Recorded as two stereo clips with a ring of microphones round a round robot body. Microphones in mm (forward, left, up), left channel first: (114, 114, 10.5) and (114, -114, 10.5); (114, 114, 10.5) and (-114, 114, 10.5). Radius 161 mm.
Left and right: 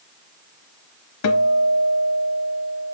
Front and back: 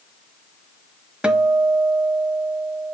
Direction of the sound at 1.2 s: 95° left.